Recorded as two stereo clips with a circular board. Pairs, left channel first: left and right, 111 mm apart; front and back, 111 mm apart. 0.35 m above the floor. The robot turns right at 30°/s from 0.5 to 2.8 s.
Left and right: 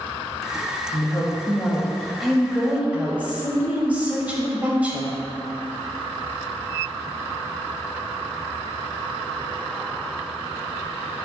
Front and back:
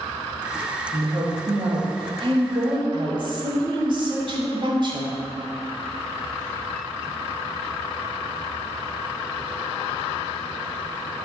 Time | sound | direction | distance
0.9 | a woman speaking | 140° left | 1.3 m